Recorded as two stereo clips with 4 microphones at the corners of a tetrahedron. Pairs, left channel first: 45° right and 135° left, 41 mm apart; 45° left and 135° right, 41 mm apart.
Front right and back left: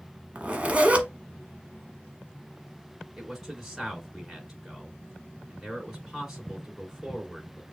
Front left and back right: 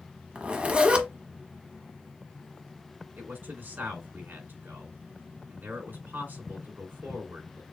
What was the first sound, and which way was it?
A zipper, straight behind.